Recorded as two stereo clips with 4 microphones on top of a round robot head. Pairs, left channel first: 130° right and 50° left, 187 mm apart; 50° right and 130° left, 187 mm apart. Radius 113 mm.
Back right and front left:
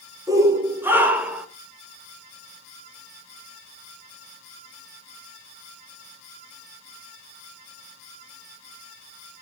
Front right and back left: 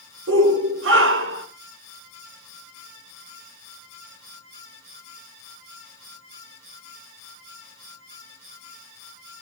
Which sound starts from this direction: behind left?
A shout, at 0.3 s.